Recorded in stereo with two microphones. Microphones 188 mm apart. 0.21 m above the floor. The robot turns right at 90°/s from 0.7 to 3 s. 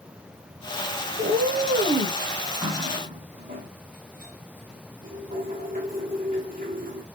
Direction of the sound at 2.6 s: 20° right (ahead or behind).